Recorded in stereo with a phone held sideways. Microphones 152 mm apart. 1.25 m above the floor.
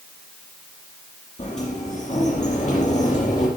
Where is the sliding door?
50° left (ahead or behind), 5 m.